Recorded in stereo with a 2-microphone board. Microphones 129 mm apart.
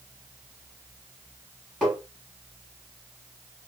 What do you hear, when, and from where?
1.8 s tapping: 5° left (ahead or behind), 2.5 m